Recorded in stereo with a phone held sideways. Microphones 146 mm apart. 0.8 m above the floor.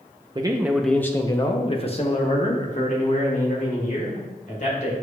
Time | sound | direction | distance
0.3 | a man speaking | 30° right (ahead or behind) | 0.5 m